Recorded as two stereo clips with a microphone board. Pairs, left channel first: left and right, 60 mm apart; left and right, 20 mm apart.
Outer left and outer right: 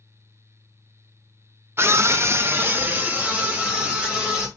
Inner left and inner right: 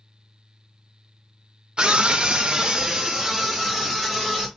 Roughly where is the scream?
Right.